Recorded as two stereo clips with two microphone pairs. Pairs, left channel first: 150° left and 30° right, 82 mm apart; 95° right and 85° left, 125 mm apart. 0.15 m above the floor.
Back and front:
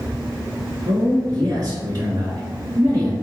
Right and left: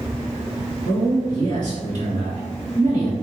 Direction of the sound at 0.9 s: 50° right.